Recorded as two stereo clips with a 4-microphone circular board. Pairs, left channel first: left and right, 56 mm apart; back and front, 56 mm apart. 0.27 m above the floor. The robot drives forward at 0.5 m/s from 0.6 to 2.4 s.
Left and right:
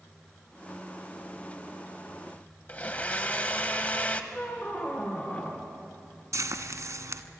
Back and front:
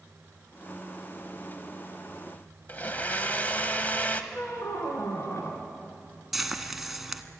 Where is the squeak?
150° left, 2.5 m.